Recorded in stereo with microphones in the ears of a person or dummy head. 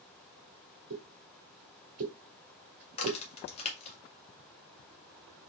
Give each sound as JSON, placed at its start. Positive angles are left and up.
{"t": 0.9, "sound": "a pop", "side_deg": -50, "distance_m": 1.2}
{"t": 2.9, "sound": "a crack", "side_deg": 40, "distance_m": 1.5}